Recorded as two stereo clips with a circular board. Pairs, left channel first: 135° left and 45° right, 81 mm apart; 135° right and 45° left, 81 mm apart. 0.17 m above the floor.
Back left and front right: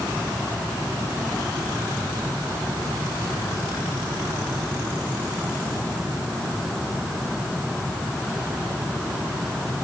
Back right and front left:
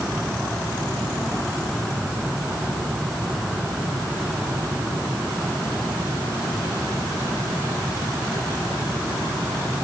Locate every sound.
Only background noise.